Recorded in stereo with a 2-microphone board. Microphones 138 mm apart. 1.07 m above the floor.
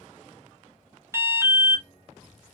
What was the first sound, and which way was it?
An alarm, 20° right (ahead or behind).